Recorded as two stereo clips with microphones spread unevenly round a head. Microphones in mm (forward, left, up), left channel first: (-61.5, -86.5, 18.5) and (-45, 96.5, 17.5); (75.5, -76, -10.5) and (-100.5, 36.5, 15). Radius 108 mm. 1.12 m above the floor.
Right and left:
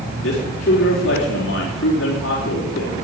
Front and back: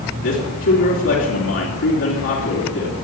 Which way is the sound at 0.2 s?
55° right.